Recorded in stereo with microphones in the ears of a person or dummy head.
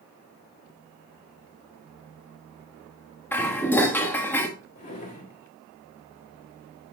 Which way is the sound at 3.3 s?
10° left (ahead or behind).